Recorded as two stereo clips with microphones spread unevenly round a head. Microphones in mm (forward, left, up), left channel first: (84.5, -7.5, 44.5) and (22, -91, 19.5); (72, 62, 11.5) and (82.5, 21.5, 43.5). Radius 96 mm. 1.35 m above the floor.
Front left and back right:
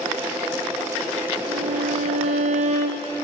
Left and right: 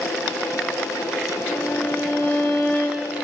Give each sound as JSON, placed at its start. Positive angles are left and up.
{"t": 1.5, "sound": "a violin", "azimuth_deg": -175, "distance_m": 0.5}